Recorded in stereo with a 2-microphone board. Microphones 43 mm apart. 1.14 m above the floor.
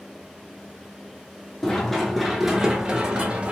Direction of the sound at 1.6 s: 15° left (ahead or behind).